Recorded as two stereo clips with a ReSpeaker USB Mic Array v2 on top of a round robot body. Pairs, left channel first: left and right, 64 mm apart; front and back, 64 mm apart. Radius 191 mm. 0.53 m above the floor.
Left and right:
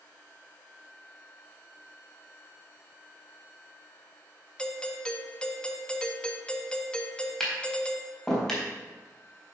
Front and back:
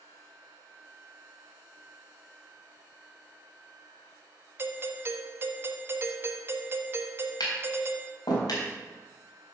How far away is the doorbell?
About 1.5 m.